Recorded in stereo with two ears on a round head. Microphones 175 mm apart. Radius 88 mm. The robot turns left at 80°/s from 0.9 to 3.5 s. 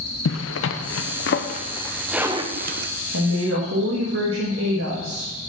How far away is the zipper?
About 0.7 m.